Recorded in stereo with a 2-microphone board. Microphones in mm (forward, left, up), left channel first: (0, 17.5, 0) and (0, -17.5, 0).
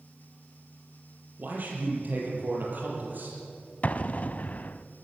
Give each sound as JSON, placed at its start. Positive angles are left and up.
{"t": 1.4, "sound": "a man speaking", "side_deg": -55, "distance_m": 6.5}
{"t": 3.8, "sound": "an explosion", "side_deg": 45, "distance_m": 0.6}